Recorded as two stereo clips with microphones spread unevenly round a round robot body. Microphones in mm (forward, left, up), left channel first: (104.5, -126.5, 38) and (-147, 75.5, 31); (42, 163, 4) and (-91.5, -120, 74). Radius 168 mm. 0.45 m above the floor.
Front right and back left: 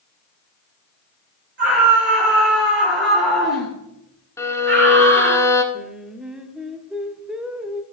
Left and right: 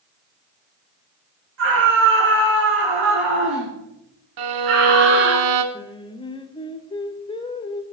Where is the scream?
165° right, 9 m.